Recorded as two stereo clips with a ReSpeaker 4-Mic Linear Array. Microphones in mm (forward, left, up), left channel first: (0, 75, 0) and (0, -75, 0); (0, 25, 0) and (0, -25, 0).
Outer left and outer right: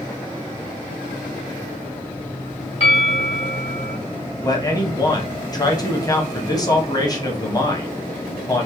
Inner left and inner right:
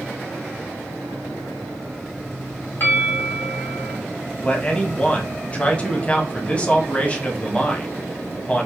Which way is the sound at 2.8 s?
45° left (ahead or behind).